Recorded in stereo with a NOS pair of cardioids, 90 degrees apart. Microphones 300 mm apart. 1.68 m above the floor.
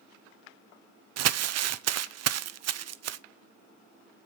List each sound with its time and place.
1.2 s crumpling: 60° right, 0.7 m